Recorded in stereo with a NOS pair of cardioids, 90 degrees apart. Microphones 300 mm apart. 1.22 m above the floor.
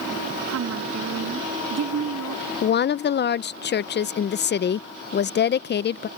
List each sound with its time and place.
0.5 s a woman speaking: 60° right; by 2.4 s 55° right
2.6 s a woman speaking: 35° left